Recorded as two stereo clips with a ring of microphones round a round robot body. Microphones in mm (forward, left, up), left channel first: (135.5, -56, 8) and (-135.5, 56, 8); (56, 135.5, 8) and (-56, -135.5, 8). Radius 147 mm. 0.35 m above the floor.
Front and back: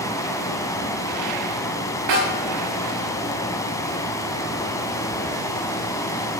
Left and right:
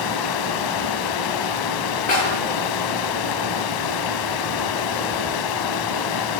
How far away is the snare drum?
About 8 m.